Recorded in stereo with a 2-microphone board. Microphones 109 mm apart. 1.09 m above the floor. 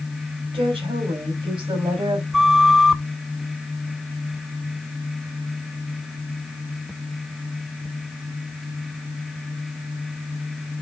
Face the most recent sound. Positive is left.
turn(degrees=-5)  # may be behind; listen again after turning